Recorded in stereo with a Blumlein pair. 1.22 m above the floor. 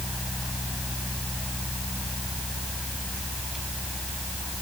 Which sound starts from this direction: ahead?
A fan, at 0.0 s.